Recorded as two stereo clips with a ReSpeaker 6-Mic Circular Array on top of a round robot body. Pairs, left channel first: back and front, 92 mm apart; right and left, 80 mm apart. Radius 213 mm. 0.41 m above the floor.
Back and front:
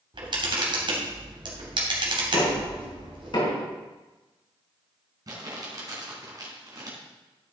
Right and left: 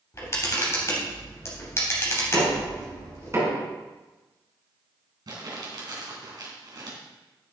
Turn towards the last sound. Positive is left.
turn(degrees=50)